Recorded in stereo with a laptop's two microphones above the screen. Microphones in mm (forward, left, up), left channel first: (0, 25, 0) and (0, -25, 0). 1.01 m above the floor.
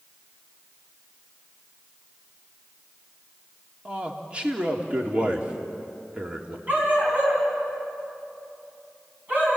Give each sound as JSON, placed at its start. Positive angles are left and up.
{"t": 3.9, "sound": "a man speaking", "side_deg": -25, "distance_m": 2.5}
{"t": 6.7, "sound": "a dog barking", "side_deg": -35, "distance_m": 4.0}